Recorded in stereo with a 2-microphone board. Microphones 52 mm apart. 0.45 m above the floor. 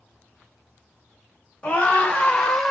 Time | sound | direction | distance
1.6 | a scream | 25° left (ahead or behind) | 1.3 m